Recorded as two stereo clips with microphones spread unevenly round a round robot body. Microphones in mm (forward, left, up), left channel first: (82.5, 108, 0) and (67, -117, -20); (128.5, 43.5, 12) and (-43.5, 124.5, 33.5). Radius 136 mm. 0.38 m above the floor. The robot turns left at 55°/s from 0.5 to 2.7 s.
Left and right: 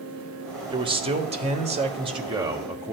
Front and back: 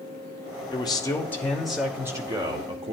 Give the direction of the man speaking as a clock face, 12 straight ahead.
2 o'clock.